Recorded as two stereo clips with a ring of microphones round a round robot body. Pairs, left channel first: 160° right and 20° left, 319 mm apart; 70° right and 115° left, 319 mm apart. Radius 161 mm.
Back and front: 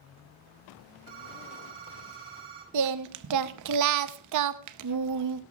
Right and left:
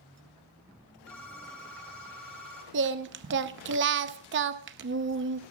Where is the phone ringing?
20° left, 7 m.